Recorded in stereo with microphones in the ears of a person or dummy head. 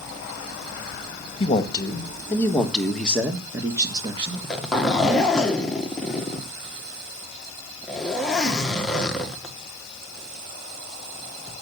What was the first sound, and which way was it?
A man speaking, 30° left (ahead or behind).